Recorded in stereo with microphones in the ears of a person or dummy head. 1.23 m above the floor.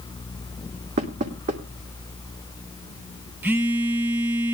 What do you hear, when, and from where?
1.0 s knocking: 40° right (ahead or behind), 2 m
3.4 s a phone buzzing: 10° right (ahead or behind), 0.7 m